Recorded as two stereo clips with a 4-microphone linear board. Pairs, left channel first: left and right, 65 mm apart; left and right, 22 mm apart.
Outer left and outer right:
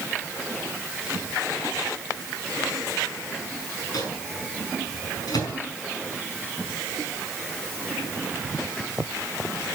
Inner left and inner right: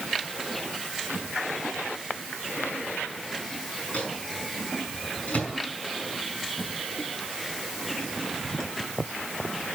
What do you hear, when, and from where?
3.9 s a microwave: 70° left (ahead or behind), 5 m